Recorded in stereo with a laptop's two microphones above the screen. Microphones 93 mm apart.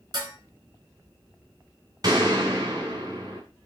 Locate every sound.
0.1 s dishes clattering: 50° right (ahead or behind), 4 m
2.0 s a gunshot: 45° right (ahead or behind), 2.5 m